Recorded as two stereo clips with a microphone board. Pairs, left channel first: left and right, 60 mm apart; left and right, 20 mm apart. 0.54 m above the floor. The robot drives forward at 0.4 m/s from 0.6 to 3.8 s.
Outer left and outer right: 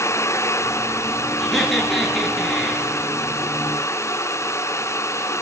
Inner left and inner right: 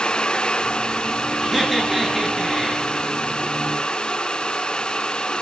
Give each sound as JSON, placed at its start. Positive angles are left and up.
{"t": 1.4, "sound": "laughter", "side_deg": 5, "distance_m": 9.5}